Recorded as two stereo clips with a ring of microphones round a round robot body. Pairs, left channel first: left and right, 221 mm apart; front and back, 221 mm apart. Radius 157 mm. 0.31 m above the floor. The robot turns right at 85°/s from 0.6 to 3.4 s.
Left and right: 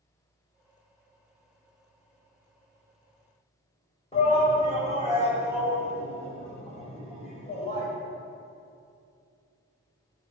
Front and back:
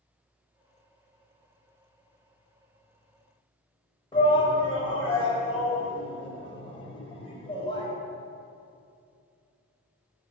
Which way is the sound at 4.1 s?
50° left.